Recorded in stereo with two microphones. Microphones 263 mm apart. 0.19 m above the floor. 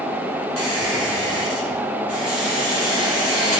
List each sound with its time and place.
0.6 s a squeak: 60° left (ahead or behind), 4 m